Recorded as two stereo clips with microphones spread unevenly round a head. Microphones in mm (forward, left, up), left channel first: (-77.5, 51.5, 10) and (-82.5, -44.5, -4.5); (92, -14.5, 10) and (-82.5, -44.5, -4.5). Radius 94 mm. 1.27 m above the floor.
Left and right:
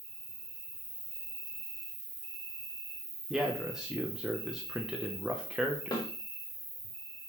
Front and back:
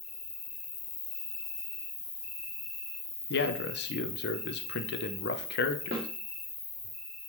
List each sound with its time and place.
0.0 s an insect: 40° right, 3.5 m
3.3 s a man speaking: 10° right, 1.0 m
5.9 s a snare drum: 130° left, 3 m